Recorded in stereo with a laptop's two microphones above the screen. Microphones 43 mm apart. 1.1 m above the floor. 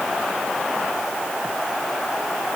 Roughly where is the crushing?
I don't hear crushing.